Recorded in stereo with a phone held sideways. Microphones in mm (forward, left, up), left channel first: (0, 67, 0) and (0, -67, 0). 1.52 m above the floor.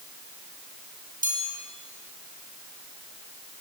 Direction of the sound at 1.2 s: 85° right.